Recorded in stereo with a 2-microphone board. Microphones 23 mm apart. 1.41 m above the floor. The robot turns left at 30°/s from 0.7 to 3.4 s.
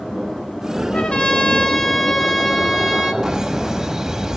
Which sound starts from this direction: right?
Laughter, at 3.2 s.